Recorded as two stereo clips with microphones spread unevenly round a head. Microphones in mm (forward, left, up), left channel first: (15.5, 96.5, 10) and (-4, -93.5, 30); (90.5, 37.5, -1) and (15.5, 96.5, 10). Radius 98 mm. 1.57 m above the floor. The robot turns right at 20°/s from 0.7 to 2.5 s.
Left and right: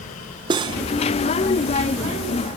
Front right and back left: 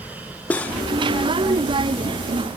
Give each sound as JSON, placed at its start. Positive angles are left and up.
{"t": 0.5, "sound": "cutlery clinking", "azimuth_deg": -115, "distance_m": 0.7}